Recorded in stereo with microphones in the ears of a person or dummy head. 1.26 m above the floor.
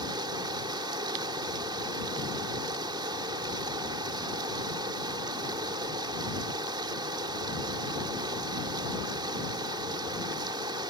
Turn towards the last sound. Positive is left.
turn(degrees=-30)  # may be behind; listen again after turning